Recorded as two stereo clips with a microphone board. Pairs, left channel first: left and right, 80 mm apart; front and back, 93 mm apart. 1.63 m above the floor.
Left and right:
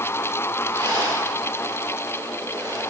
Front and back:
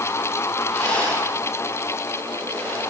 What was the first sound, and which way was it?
A rattle, 80° right.